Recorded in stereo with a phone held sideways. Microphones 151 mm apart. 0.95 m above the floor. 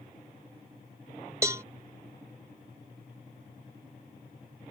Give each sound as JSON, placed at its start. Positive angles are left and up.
{"t": 1.4, "sound": "a cowbell", "side_deg": -20}